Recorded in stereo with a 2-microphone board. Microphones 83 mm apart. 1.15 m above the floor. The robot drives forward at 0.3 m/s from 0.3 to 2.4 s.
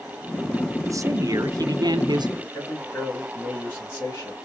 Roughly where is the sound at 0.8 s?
Right.